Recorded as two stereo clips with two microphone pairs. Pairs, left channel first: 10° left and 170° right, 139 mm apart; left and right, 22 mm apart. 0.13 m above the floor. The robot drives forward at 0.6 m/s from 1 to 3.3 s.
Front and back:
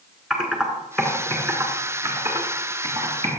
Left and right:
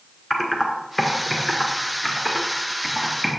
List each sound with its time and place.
0.3 s typing on a keyboard: 120° left, 1.3 m; by 3.3 s 165° left, 2.0 m